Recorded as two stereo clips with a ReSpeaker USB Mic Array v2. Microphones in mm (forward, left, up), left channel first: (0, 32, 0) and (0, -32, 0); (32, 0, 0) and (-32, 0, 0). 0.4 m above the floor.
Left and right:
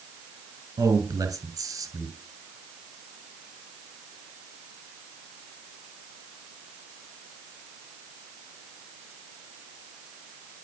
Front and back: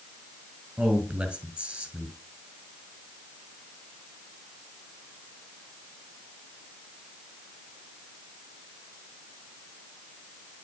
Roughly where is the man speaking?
Right.